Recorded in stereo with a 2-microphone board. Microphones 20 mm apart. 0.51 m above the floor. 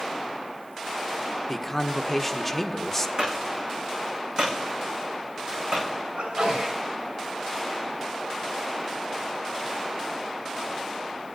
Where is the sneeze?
80° right, 5.5 m.